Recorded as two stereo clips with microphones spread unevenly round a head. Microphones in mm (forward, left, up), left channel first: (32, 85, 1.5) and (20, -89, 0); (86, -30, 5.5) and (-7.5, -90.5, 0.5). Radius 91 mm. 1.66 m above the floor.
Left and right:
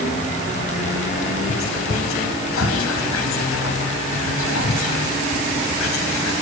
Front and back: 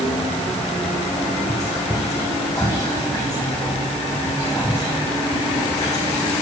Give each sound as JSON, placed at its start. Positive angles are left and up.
{"t": 1.5, "sound": "whispering", "azimuth_deg": 105, "distance_m": 1.1}